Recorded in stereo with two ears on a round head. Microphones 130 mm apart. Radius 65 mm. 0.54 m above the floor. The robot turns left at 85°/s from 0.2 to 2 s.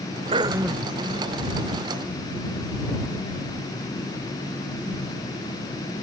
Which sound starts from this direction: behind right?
Throat clearing, at 0.3 s.